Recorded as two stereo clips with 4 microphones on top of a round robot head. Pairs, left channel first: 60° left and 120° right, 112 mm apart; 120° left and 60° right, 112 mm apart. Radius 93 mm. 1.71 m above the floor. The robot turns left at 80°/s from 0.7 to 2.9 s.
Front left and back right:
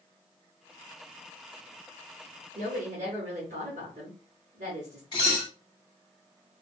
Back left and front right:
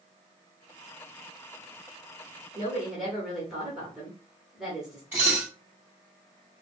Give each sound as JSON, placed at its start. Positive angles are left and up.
{"t": 2.5, "sound": "a woman speaking", "azimuth_deg": -115, "distance_m": 1.0}
{"t": 5.1, "sound": "dishes clattering", "azimuth_deg": 10, "distance_m": 0.8}